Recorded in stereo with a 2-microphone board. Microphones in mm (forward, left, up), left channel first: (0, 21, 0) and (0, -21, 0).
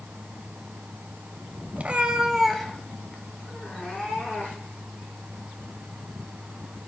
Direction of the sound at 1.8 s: 40° right (ahead or behind).